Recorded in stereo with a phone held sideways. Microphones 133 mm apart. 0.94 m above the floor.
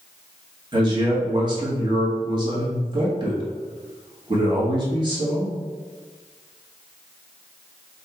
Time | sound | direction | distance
0.7 | a man speaking | 35° right (ahead or behind) | 1.9 m